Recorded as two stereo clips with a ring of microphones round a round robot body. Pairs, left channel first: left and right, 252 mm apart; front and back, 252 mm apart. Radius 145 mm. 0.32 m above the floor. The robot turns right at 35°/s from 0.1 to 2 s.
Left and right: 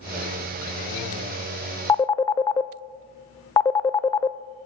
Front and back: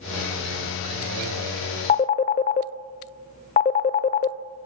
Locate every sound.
1.9 s a phone ringing: 25° left, 0.5 m